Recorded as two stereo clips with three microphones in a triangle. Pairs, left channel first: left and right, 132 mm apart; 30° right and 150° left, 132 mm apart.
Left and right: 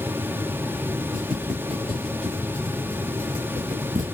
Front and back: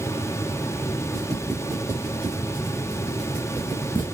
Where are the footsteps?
140° right, 2.5 m; by 4.1 s 95° right, 1.6 m.